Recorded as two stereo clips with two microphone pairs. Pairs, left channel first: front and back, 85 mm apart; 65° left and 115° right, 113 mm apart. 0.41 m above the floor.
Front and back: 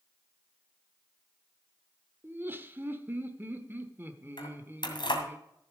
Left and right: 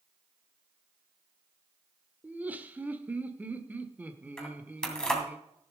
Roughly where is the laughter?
Behind.